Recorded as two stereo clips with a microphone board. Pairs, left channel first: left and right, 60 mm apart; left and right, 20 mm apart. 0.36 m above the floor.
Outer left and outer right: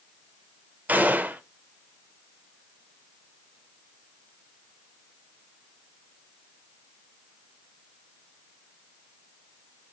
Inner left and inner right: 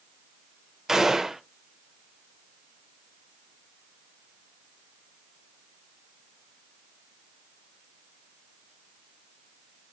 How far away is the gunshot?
About 0.5 m.